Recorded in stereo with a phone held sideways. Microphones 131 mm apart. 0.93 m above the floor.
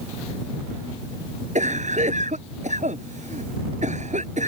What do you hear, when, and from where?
1.6 s a cough: 70° right (ahead or behind)